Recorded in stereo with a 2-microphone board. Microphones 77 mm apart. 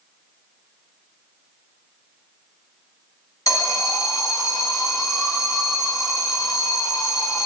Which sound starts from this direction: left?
An alarm, at 3.5 s.